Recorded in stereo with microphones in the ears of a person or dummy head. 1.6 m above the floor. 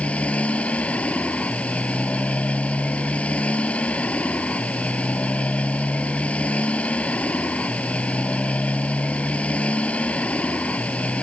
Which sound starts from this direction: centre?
A motorcycle, at 0.0 s.